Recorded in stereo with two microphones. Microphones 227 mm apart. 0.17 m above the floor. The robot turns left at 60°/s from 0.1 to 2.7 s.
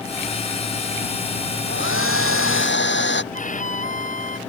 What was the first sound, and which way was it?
A hair dryer, 120° left.